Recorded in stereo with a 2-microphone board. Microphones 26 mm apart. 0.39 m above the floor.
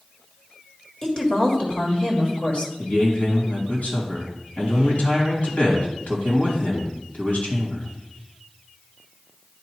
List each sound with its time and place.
1.0 s a woman speaking: 20° left (ahead or behind), 1.6 m; by 2.7 s 45° left (ahead or behind), 1.6 m
2.8 s a man speaking: 65° left (ahead or behind), 2.5 m